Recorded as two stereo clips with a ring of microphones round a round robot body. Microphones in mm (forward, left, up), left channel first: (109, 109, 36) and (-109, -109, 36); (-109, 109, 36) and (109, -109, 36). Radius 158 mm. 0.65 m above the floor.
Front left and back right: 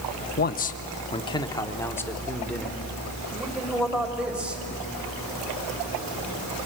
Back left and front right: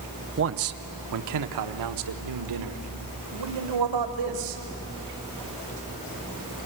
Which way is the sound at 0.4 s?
5° right.